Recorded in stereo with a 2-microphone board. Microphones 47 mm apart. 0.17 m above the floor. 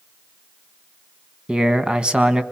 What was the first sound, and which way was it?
A man speaking, 20° right (ahead or behind).